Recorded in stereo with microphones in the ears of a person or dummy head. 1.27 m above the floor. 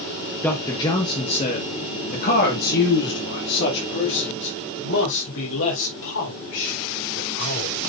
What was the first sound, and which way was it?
A man speaking, 20° left (ahead or behind).